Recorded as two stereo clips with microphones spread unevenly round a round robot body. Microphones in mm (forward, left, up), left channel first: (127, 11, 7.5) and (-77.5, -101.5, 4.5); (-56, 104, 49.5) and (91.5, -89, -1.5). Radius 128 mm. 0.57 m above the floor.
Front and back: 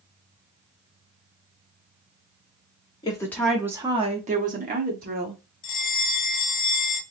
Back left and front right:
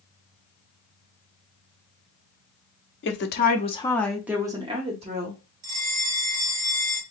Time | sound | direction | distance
3.0 | a woman speaking | 95° left | 0.7 m
5.6 | a bell | 30° right | 1.3 m